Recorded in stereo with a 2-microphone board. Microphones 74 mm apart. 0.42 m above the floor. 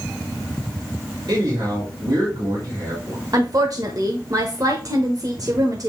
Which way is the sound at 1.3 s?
65° right (ahead or behind).